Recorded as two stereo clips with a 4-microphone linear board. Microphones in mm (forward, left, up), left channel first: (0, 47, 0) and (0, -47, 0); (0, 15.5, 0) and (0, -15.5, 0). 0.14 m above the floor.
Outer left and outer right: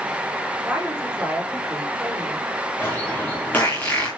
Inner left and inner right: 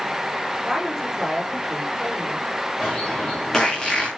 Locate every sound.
0.6 s a woman speaking: 15° right (ahead or behind), 9 m
2.8 s a bird: 20° left (ahead or behind), 8 m